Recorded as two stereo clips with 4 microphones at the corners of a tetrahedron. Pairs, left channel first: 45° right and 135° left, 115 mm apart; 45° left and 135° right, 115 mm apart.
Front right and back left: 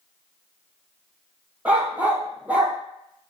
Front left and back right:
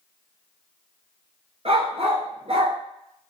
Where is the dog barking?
150° right, 0.9 m.